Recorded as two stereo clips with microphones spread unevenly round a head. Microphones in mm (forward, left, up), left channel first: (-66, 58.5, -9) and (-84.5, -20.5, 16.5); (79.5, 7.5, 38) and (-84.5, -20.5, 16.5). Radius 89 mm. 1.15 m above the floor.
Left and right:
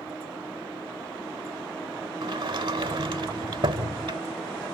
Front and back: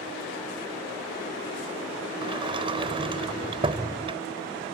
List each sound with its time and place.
2.2 s a sliding door: 105° right